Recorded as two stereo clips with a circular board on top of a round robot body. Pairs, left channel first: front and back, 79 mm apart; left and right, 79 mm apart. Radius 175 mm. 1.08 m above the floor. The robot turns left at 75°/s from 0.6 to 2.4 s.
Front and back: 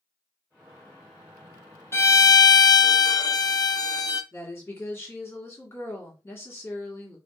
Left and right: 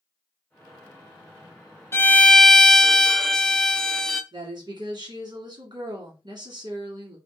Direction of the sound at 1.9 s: 45° left.